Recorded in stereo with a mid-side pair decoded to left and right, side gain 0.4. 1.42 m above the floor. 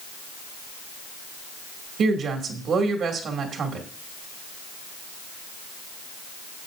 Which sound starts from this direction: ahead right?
A woman speaking, at 2.0 s.